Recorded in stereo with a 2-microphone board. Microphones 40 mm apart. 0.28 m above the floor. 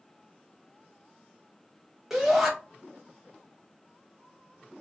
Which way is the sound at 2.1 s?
5° right (ahead or behind).